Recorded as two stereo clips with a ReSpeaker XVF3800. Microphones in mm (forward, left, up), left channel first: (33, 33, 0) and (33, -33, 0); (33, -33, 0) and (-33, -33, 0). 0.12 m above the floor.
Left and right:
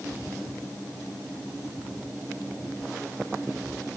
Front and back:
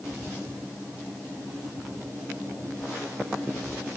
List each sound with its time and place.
Only background noise.